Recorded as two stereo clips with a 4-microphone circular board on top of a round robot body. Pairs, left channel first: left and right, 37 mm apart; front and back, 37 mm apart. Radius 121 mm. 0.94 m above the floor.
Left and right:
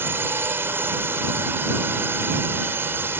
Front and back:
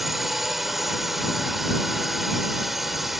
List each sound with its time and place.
0.0 s a drone: 95° right